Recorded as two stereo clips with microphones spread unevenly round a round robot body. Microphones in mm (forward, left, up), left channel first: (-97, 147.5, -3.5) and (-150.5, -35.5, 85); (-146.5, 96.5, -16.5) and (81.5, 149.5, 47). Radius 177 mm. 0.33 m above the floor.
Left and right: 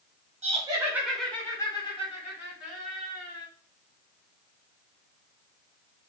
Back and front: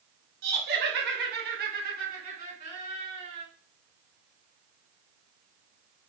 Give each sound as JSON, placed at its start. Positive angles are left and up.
{"t": 0.4, "sound": "laughter", "azimuth_deg": -30, "distance_m": 1.1}